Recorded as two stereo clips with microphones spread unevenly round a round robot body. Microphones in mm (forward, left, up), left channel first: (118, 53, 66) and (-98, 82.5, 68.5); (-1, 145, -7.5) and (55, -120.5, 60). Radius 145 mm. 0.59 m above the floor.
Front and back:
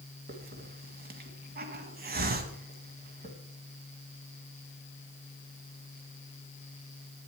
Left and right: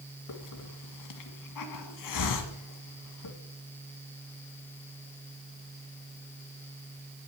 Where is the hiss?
125° left, 1.7 m.